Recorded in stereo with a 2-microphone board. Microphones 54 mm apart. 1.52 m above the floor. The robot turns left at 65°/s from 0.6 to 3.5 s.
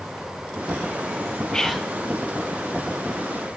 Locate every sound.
1.5 s whispering: 10° left (ahead or behind), 0.9 m; by 1.9 s 10° right (ahead or behind), 0.9 m